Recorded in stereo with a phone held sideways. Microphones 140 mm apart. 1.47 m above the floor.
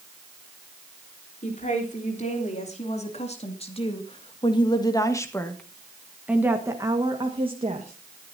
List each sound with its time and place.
1.4 s a woman speaking: 60° left (ahead or behind), 3.5 m; by 8.3 s 55° right (ahead or behind), 2 m